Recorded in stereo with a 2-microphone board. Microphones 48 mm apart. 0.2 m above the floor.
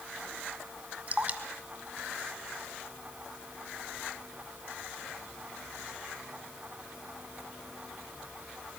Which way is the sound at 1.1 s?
35° right (ahead or behind).